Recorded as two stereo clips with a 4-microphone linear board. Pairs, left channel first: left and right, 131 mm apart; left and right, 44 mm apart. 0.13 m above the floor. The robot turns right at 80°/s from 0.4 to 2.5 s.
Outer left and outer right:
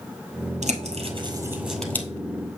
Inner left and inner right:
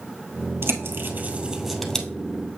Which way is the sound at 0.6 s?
70° right (ahead or behind).